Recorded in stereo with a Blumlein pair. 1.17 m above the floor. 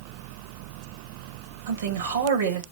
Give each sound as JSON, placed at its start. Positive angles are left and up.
{"t": 1.7, "sound": "a man speaking", "azimuth_deg": -65, "distance_m": 1.6}